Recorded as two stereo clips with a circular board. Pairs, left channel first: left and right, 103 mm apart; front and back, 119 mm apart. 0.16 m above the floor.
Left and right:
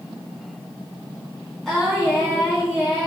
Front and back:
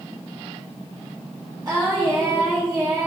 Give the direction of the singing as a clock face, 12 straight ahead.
6 o'clock.